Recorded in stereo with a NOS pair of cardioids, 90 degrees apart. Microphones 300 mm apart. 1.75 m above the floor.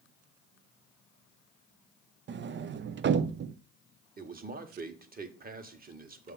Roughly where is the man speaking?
Ahead right.